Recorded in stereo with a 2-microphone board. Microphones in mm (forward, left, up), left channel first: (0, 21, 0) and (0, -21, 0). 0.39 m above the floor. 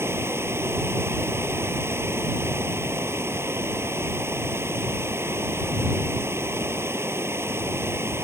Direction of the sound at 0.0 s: 75° right (ahead or behind).